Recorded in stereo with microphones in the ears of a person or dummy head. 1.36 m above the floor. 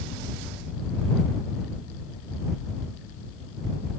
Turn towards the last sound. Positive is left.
No sound to turn to.